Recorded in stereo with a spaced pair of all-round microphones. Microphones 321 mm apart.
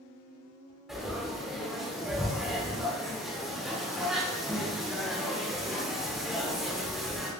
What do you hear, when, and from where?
0.9 s frying: centre (ahead or behind), 1.1 m